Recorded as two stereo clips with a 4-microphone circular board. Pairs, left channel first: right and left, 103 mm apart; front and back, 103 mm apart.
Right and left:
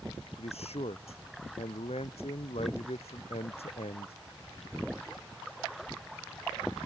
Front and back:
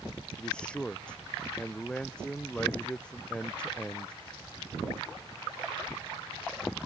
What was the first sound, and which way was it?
A man speaking, 80° right.